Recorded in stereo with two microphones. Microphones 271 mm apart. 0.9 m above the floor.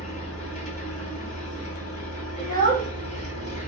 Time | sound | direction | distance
0.0 | an engine running | 25° left (ahead or behind) | 1.3 m
2.4 | a child speaking | 30° left (ahead or behind) | 1.1 m